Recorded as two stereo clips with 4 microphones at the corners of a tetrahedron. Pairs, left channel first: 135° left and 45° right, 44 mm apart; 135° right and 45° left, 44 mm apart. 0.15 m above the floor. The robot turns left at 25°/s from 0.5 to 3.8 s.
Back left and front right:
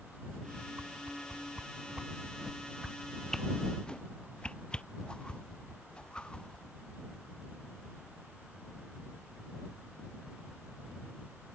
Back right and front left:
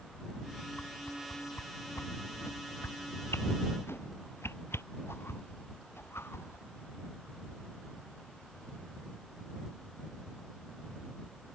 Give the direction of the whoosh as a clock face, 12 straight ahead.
3 o'clock.